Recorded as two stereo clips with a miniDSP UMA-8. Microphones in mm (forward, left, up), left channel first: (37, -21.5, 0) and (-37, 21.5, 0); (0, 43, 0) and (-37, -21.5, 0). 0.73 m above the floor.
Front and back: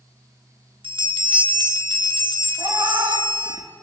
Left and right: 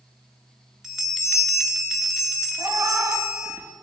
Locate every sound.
0.8 s a bell: 155° left, 1.3 m
2.6 s a cat meowing: 170° right, 1.0 m